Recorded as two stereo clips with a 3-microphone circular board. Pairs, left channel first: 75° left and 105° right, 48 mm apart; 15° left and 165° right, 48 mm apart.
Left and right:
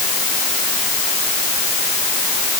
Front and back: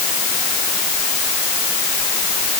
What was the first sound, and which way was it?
Only background noise.